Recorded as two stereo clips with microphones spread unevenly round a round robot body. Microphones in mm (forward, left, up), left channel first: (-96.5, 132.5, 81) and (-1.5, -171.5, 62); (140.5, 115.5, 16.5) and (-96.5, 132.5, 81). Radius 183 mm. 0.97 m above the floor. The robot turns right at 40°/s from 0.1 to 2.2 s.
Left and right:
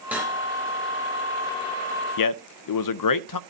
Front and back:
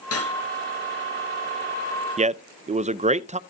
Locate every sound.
0.1 s cutlery clinking: 15° left, 3.5 m; by 0.3 s 25° left, 3.5 m
2.2 s a man speaking: 105° left, 0.7 m